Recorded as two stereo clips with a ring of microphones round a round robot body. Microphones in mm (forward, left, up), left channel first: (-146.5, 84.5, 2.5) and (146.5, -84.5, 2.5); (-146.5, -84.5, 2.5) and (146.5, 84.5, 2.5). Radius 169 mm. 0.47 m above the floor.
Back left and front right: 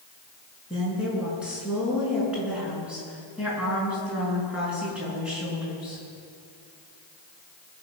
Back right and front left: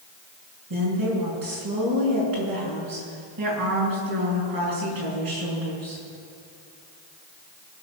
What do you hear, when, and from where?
0.7 s a woman speaking: 55° left, 6.5 m